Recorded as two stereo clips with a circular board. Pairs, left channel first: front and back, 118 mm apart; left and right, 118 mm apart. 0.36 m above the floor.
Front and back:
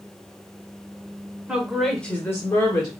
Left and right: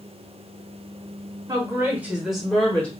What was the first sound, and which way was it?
A woman speaking, 110° right.